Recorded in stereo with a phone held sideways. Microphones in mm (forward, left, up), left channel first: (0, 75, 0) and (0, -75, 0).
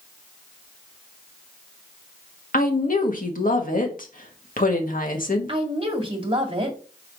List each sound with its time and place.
2.5 s a woman speaking: 65° left (ahead or behind), 1.6 m
5.5 s a woman speaking: 35° right (ahead or behind), 1.8 m